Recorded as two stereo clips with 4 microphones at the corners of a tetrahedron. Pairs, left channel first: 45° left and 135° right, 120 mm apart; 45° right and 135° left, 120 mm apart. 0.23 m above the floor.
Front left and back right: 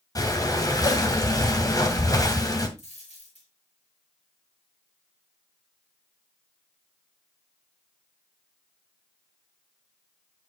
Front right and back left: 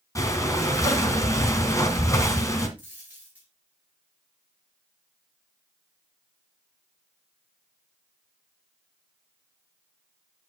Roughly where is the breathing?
Ahead.